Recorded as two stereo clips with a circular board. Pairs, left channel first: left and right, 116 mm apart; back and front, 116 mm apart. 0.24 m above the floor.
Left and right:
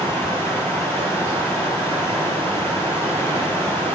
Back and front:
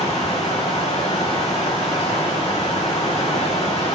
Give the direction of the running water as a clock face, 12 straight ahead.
7 o'clock.